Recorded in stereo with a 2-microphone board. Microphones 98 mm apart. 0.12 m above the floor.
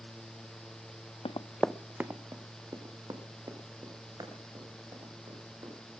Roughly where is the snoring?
No snoring in this recording.